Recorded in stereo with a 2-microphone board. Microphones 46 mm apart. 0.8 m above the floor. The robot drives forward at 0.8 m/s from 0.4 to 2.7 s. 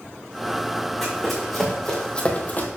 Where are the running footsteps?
Centre (ahead or behind), 3.5 m; by 2.7 s 45° left (ahead or behind), 1.2 m.